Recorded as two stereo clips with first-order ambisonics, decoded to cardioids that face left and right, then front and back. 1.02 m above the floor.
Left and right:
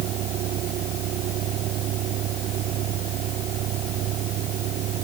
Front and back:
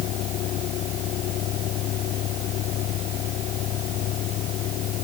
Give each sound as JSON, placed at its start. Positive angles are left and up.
{"t": 0.0, "sound": "a vehicle", "azimuth_deg": -45}